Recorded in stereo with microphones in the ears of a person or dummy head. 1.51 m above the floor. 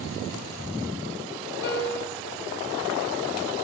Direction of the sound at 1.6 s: 60° left (ahead or behind).